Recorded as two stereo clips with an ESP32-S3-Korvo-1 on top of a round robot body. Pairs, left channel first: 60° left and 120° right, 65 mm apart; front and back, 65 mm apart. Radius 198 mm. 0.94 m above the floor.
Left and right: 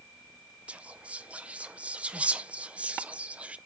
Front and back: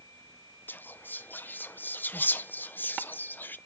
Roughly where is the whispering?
Ahead right.